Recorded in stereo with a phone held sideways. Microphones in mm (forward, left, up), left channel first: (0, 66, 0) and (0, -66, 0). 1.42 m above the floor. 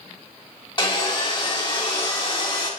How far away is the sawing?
About 1.9 m.